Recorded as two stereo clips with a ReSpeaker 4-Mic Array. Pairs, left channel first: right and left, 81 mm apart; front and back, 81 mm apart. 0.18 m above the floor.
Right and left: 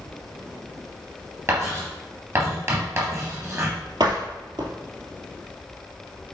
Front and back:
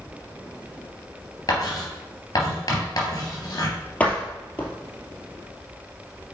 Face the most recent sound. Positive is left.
turn(degrees=70)